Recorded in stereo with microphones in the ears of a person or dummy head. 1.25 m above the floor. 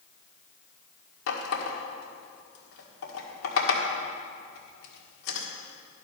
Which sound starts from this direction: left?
A running tap, at 1.3 s.